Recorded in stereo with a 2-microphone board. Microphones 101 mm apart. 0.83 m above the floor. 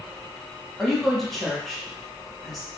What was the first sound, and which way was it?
A woman speaking, centre (ahead or behind).